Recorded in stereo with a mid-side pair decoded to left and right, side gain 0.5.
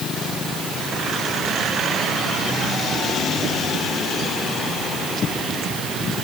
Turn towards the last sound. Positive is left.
No sound to turn to.